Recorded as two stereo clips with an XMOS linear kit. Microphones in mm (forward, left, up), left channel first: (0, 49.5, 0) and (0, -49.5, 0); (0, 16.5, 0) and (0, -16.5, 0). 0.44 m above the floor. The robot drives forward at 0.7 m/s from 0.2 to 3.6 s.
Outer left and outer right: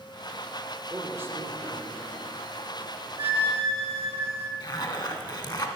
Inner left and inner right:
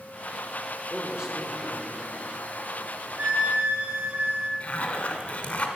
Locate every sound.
0.9 s a man speaking: 25° right (ahead or behind), 1.2 m; by 2.3 s 20° right (ahead or behind), 1.8 m
3.2 s a flute: 70° right (ahead or behind), 1.3 m; by 4.5 s 80° right, 1.2 m
4.6 s a zipper: 45° left (ahead or behind), 0.8 m